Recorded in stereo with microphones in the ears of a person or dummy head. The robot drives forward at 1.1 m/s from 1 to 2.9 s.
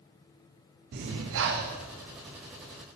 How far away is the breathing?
About 0.6 m.